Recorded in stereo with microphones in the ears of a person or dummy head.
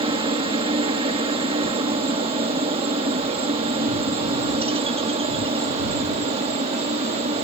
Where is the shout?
I don't hear a shout.